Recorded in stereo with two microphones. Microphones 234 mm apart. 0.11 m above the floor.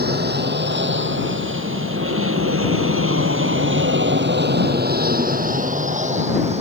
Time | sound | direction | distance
0.0 | an aircraft | 45° right (ahead or behind) | ?